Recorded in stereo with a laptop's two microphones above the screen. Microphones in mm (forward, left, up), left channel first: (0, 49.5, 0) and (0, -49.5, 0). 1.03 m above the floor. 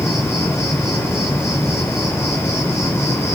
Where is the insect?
30° left (ahead or behind), 3.5 m.